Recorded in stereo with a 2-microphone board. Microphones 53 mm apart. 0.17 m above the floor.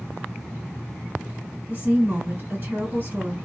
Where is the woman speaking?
35° right (ahead or behind), 2.5 m.